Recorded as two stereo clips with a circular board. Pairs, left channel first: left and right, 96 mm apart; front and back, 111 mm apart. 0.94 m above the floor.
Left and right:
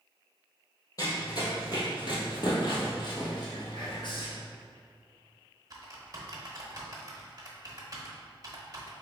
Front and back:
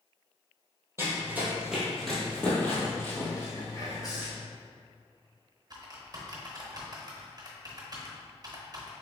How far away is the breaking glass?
No breaking glass in this recording.